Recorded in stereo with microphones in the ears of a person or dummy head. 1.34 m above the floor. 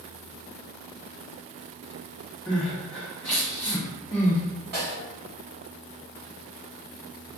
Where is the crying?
Centre (ahead or behind), 1.3 m.